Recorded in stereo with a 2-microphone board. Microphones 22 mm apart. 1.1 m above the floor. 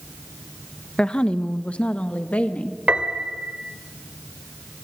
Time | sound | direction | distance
1.0 | a woman speaking | 40° left (ahead or behind) | 1.2 m
2.9 | a piano | 70° right (ahead or behind) | 2 m